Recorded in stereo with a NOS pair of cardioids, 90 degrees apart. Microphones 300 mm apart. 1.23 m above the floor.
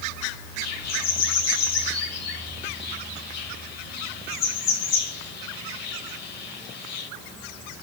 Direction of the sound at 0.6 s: 60° left.